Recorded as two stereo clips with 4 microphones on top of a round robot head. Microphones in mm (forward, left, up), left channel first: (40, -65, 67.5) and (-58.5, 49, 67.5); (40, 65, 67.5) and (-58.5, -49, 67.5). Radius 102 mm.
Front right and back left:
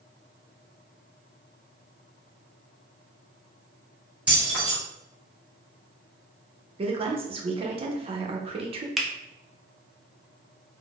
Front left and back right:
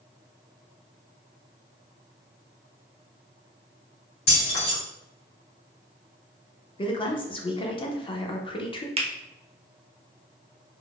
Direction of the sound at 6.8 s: 95° left.